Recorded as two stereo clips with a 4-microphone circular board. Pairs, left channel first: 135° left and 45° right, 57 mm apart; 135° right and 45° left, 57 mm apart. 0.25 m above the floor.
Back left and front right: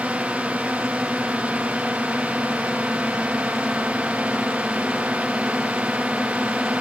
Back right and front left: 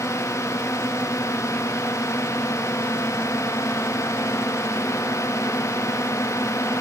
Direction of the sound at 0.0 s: 115° right.